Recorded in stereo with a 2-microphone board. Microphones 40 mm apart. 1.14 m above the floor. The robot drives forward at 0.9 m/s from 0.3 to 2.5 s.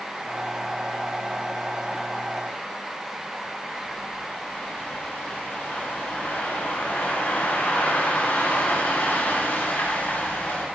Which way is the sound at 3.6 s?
60° left (ahead or behind).